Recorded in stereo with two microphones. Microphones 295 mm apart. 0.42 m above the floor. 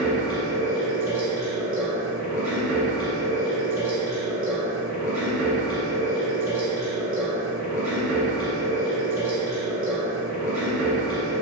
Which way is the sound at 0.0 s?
5° right (ahead or behind).